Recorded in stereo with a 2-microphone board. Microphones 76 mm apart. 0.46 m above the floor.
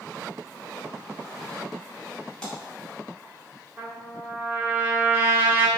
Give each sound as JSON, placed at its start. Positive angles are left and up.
{"t": 2.4, "sound": "a splash", "side_deg": 10, "distance_m": 1.4}
{"t": 3.8, "sound": "a trumpet", "side_deg": -25, "distance_m": 0.7}